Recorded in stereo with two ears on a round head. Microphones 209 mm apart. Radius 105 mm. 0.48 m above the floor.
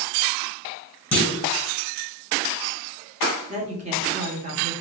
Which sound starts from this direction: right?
A woman speaking, at 3.5 s.